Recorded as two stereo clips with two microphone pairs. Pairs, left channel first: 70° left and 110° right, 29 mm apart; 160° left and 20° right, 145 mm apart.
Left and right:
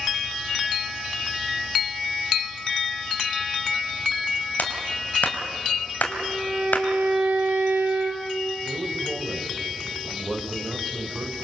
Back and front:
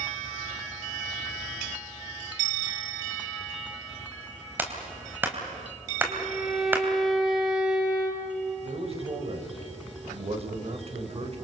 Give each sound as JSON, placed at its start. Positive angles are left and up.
{"t": 4.6, "sound": "a clap", "azimuth_deg": 55, "distance_m": 3.0}
{"t": 6.1, "sound": "a violin", "azimuth_deg": -105, "distance_m": 3.5}
{"t": 8.6, "sound": "a man speaking", "azimuth_deg": -60, "distance_m": 2.5}